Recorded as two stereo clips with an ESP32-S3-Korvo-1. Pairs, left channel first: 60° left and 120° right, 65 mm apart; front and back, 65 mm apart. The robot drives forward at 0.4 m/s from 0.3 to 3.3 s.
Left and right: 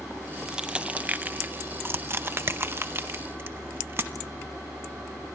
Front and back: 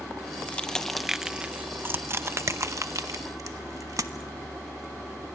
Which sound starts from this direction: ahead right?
Crushing, at 0.5 s.